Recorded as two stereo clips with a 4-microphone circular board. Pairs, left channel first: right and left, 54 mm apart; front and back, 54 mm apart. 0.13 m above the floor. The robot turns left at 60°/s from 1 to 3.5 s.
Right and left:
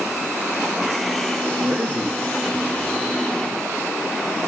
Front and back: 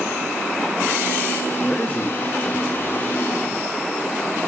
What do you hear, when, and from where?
1.6 s a man speaking: 75° left, 1.2 m; by 3.1 s 20° right, 1.2 m